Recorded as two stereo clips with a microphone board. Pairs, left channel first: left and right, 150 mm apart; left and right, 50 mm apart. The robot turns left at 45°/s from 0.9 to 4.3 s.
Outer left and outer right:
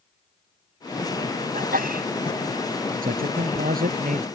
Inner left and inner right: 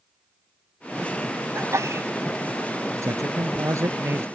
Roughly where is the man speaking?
Right.